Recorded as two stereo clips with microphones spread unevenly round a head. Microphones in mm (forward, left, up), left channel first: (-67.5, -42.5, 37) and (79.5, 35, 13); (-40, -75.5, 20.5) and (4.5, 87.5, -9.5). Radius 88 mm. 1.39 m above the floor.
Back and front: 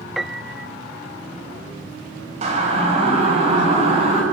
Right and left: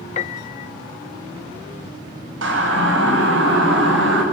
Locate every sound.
0.2 s a piano: 65° right, 0.6 m
2.4 s a siren: 80° left, 7 m; by 4.2 s 85° left, 8.5 m